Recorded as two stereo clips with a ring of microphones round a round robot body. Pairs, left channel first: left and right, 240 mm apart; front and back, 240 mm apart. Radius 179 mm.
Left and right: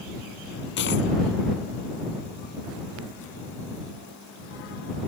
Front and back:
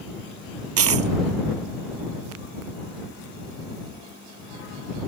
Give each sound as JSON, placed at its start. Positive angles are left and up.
{"t": 0.8, "sound": "a dropped coin", "azimuth_deg": 150}